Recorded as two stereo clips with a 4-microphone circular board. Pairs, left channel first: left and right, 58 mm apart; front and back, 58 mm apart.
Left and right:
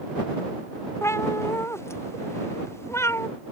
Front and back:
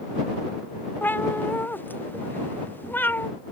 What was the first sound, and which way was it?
A cat meowing, 55° left.